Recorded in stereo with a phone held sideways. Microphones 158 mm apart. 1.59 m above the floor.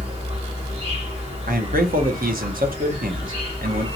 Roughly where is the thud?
I don't hear a thud.